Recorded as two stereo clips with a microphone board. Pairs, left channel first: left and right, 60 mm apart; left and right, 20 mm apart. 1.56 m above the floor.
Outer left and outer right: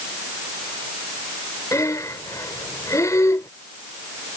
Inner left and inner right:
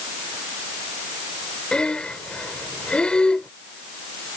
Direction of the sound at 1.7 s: 65° left (ahead or behind).